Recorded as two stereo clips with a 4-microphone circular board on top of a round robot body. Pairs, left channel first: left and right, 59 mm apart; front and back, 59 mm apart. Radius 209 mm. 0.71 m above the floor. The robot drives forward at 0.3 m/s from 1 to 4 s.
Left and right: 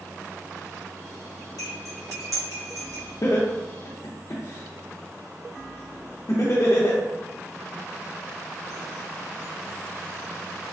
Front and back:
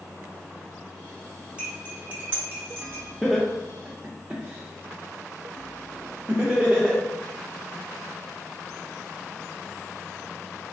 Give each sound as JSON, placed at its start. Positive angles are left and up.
{"t": 1.6, "sound": "cutlery clinking", "azimuth_deg": 110, "distance_m": 0.8}
{"t": 3.2, "sound": "laughter", "azimuth_deg": 85, "distance_m": 0.7}